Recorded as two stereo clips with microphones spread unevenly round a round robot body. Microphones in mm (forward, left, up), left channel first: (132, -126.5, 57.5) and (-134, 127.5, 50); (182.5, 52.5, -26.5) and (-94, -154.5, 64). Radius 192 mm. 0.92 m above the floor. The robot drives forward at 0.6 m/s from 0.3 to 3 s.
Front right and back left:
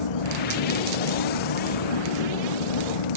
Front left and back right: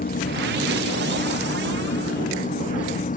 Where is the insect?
30° right; by 3.2 s 35° right.